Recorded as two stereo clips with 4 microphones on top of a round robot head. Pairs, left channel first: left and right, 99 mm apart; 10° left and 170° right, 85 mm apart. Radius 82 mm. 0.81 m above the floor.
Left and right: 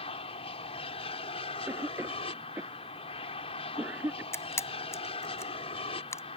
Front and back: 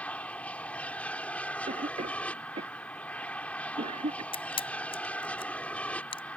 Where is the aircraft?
80° left.